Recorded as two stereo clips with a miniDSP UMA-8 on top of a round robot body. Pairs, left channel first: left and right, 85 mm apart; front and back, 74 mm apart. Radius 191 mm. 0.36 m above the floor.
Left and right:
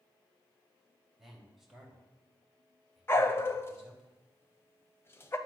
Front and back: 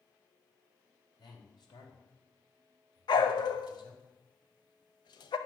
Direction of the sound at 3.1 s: 25° left.